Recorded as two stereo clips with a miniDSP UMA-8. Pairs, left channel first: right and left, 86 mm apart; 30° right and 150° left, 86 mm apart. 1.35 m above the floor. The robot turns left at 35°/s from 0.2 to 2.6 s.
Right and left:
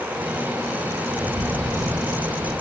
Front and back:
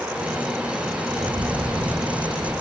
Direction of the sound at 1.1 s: 160° left.